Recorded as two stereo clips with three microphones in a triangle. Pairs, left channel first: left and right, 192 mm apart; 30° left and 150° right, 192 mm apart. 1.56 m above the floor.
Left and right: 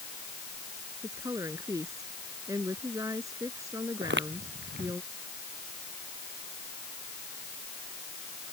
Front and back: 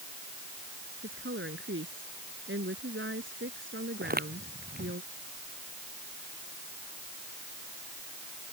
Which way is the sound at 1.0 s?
165° right.